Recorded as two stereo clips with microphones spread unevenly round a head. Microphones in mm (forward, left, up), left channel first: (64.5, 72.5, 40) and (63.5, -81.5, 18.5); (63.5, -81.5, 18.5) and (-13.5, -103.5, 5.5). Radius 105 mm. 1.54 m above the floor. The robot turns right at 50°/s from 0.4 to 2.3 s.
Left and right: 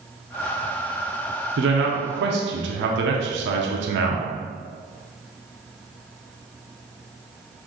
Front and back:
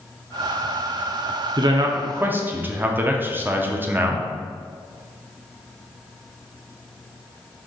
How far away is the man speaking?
About 0.6 m.